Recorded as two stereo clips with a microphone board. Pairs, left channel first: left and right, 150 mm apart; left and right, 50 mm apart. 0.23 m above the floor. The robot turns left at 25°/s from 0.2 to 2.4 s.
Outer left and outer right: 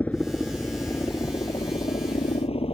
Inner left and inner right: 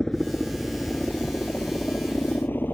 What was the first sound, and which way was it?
A helicopter, 10° left (ahead or behind).